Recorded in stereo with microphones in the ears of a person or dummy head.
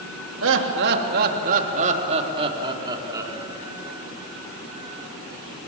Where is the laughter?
65° right (ahead or behind), 3 m; by 3.3 s 10° right (ahead or behind), 4.5 m.